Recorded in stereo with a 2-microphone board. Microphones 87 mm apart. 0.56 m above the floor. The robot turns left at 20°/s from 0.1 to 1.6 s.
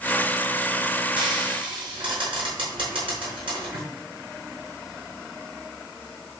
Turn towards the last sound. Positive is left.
turn(degrees=-80)